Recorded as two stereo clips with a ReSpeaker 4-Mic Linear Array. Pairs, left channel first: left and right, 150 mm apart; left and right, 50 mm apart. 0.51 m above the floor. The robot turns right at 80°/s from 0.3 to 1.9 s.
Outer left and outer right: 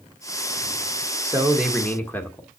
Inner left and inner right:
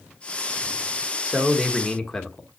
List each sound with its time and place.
1.2 s a man speaking: 35° right, 1.6 m; by 2.5 s 15° left, 1.6 m